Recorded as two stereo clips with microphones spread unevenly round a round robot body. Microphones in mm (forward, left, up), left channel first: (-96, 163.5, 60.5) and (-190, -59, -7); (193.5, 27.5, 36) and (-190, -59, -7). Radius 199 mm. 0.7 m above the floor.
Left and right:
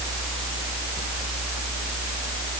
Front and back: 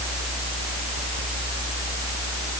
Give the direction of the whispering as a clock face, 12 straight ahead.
I don't hear whispering.